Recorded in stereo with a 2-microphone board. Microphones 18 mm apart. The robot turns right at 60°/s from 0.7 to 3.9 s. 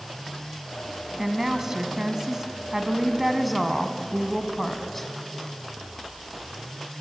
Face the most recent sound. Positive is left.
turn(degrees=10)  # may be behind; listen again after turning